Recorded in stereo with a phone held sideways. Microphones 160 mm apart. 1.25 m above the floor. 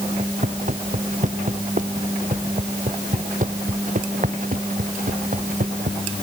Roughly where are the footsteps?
Right.